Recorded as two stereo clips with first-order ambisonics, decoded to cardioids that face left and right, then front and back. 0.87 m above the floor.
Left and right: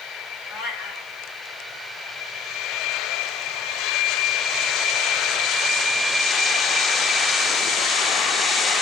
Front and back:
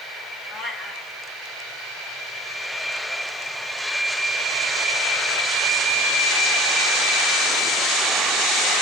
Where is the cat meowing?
100° left, 1.9 m.